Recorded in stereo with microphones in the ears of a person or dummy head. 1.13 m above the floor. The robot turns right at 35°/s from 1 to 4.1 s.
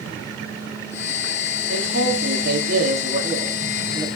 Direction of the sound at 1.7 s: 80° right.